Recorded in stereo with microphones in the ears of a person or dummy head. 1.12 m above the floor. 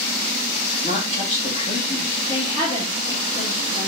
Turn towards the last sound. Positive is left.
turn(degrees=30)  # may be behind; listen again after turning